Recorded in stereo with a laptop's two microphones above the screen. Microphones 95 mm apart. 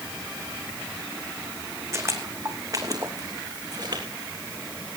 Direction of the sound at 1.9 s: 30° right (ahead or behind).